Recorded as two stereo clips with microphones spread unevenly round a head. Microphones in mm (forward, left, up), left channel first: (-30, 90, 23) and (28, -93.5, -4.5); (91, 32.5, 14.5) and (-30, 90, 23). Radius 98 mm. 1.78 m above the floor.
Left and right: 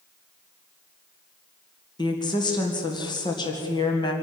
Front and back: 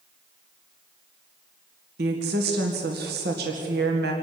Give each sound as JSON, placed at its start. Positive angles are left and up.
{"t": 2.0, "sound": "a woman speaking", "azimuth_deg": 175, "distance_m": 2.0}